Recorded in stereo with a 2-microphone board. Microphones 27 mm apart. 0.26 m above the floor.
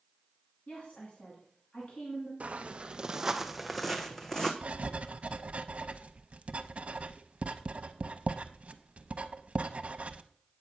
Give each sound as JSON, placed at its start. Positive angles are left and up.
{"t": 0.7, "sound": "a woman speaking", "side_deg": 60, "distance_m": 2.5}
{"t": 2.4, "sound": "footsteps", "side_deg": -55, "distance_m": 0.7}
{"t": 4.6, "sound": "writing", "side_deg": -55, "distance_m": 0.6}